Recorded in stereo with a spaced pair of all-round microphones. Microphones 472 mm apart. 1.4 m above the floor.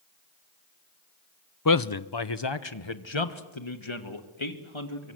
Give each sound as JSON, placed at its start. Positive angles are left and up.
{"t": 1.6, "sound": "a man speaking", "side_deg": 40, "distance_m": 0.7}